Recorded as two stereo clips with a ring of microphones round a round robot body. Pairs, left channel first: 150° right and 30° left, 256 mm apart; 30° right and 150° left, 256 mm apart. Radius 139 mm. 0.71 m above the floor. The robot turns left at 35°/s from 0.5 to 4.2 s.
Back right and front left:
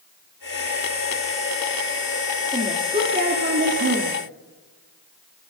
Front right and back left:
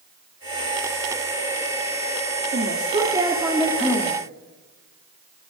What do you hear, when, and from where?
2.5 s a woman speaking: 100° left, 2 m; by 4.2 s 45° left, 2 m